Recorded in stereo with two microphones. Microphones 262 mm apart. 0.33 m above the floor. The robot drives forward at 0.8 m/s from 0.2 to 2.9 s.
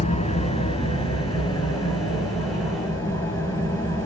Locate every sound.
0.0 s an engine running: 25° left (ahead or behind), 2.0 m; by 4.1 s 10° left (ahead or behind), 4 m